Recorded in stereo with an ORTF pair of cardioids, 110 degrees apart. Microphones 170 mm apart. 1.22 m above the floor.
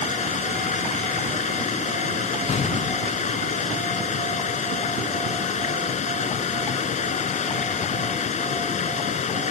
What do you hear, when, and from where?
0.0 s running water: 45° left
2.5 s an explosion: 40° left